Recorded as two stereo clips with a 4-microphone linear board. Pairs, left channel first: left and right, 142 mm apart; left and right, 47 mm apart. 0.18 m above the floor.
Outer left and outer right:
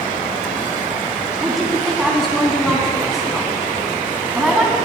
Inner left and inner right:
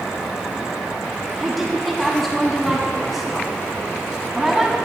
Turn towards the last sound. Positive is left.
turn(degrees=0)  # may be behind; listen again after turning